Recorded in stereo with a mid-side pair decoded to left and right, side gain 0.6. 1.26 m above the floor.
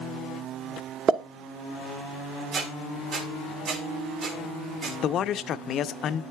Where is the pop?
45° right, 1.1 m.